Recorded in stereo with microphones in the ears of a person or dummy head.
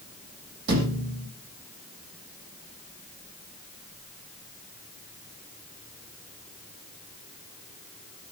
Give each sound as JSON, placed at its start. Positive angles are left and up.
{"t": 0.7, "sound": "a thud", "side_deg": -60, "distance_m": 6.5}